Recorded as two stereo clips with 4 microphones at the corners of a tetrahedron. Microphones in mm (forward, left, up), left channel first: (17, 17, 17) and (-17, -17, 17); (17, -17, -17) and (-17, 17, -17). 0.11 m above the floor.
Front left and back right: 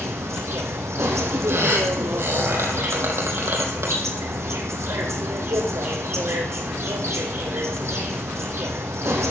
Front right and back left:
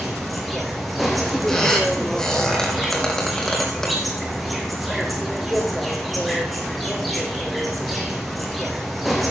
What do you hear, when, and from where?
0.0 s an insect: 135° right, 2.5 m
1.5 s a squeak: 125° right, 3.5 m